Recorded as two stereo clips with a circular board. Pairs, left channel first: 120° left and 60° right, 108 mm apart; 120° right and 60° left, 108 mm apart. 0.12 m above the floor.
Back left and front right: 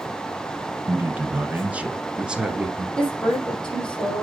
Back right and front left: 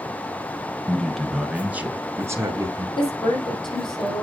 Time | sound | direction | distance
0.9 | a man speaking | 55° right | 1.1 m
3.0 | a woman speaking | 160° right | 5 m